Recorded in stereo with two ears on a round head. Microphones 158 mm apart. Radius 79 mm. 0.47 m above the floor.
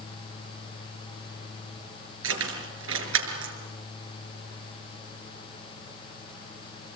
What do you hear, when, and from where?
2.2 s keys jangling: 80° right, 6 m; by 3.5 s 85° right, 5.5 m